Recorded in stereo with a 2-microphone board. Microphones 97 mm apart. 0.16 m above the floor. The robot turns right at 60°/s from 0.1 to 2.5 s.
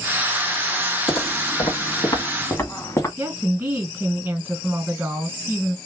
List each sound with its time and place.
1.1 s footsteps: 85° left, 2 m; by 3.1 s 25° left (ahead or behind), 1.3 m
3.2 s a woman speaking: 20° right (ahead or behind), 1.8 m